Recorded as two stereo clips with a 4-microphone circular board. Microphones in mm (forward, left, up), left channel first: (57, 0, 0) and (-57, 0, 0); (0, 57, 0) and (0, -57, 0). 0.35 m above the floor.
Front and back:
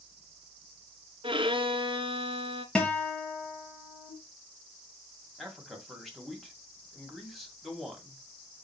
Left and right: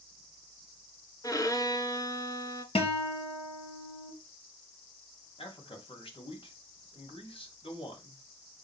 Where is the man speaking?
90° left, 2 m.